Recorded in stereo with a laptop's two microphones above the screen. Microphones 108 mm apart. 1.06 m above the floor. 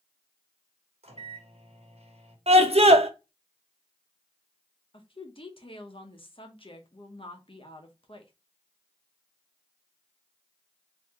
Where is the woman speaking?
55° left (ahead or behind), 0.8 m.